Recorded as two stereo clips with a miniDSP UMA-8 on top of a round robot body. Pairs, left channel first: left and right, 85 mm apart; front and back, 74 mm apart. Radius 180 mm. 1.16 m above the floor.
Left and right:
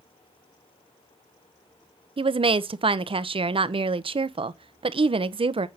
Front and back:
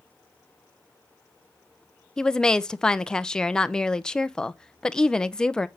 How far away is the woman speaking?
About 0.6 m.